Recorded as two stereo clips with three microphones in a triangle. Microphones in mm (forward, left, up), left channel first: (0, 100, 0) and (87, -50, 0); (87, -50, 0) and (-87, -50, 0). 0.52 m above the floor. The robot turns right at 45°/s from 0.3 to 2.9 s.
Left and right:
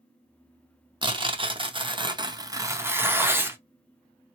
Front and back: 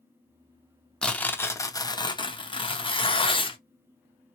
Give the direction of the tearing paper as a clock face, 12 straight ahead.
3 o'clock.